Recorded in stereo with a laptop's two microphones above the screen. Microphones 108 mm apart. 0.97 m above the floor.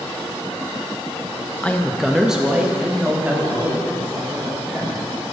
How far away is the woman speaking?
About 0.8 m.